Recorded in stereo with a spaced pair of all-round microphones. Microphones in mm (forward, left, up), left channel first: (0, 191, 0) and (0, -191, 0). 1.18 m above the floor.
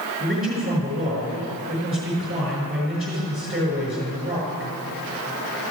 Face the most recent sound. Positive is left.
turn(degrees=-25)  # may be behind; listen again after turning